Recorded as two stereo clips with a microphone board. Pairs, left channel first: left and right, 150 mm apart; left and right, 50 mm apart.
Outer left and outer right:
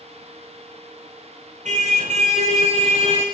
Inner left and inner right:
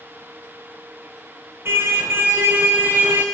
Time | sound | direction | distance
1.6 | a car horn | 55° right (ahead or behind) | 4 m